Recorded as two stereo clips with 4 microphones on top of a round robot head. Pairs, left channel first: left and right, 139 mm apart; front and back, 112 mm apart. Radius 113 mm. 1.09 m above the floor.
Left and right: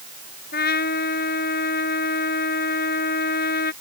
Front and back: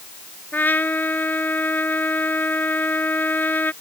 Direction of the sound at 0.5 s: 70° left.